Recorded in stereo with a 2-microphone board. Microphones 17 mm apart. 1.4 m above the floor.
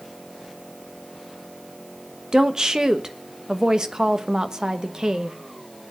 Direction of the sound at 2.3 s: 50° right (ahead or behind).